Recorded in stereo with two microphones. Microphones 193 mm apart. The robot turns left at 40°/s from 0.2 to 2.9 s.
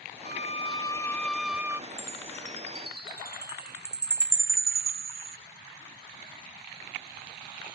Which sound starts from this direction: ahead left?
A violin, at 0.2 s.